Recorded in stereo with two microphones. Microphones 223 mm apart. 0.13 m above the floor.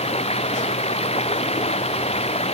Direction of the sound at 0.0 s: 25° left (ahead or behind).